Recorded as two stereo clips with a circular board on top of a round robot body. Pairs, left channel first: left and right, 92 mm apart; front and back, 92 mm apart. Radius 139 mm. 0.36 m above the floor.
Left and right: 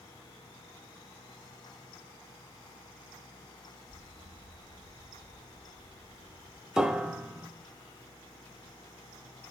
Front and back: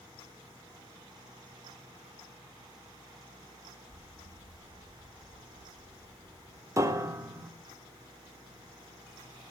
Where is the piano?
170° right, 1.1 m.